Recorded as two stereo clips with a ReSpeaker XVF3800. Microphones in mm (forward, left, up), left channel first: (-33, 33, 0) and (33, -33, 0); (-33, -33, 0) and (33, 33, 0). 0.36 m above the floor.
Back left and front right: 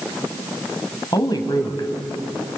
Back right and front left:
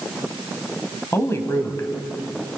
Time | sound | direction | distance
1.1 | a woman speaking | 170° left | 2 m